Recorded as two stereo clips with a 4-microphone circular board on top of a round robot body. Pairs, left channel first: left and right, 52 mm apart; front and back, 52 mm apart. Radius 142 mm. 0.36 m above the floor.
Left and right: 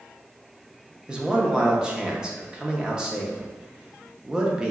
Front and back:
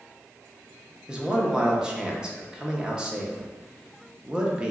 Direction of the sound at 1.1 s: 135° right.